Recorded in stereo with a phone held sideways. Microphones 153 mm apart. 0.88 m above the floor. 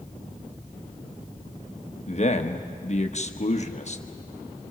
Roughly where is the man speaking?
Left.